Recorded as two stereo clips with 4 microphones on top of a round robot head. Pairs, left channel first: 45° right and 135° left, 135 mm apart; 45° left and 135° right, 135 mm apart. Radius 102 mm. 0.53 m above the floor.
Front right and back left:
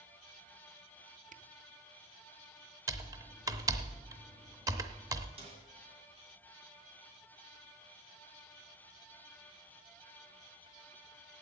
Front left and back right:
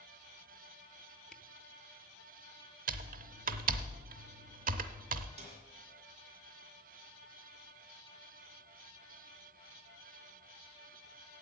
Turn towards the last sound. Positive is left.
turn(degrees=180)